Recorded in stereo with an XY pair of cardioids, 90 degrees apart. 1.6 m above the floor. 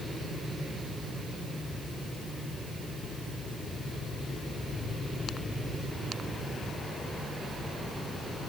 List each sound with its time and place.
Only background noise.